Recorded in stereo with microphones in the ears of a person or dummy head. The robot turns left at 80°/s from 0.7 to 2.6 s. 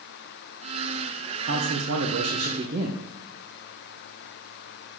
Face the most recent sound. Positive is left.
turn(degrees=-140)